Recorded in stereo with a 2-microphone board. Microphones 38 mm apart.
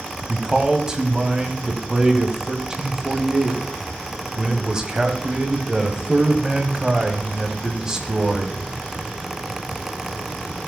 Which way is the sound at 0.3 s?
15° right (ahead or behind).